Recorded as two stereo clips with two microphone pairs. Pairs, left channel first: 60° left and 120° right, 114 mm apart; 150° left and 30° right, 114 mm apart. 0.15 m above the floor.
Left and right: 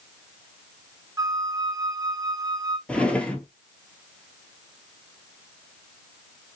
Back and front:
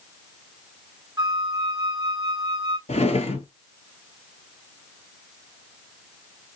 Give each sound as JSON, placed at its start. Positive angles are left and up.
{"t": 1.2, "sound": "a flute", "azimuth_deg": -70, "distance_m": 0.6}
{"t": 2.9, "sound": "a drawer", "azimuth_deg": 140, "distance_m": 1.0}